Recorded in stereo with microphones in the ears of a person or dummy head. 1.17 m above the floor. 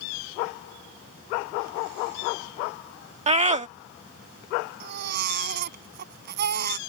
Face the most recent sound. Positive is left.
turn(degrees=-50)  # may be behind; listen again after turning